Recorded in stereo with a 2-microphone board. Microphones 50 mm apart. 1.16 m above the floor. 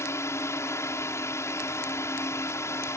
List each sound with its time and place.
0.0 s a drone: 65° left (ahead or behind)